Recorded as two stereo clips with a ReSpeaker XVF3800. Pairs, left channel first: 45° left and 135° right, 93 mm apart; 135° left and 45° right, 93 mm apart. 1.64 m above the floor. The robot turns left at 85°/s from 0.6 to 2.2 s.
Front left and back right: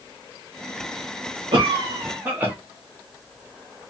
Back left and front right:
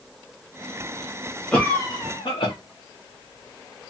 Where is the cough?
145° right, 0.7 m; by 2.5 s 155° left, 0.7 m.